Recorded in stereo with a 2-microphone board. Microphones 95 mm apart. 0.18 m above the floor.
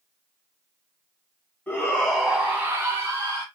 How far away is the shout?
About 1.7 m.